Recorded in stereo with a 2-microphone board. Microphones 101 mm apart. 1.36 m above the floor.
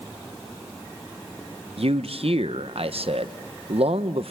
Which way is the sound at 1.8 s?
70° right (ahead or behind).